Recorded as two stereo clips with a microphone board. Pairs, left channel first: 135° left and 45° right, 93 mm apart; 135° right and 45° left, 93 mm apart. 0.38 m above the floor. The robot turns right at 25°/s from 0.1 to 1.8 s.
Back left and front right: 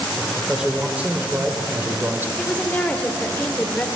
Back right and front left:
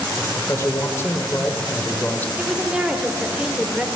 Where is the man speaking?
125° right, 1.1 m; by 2.3 s 85° right, 1.1 m.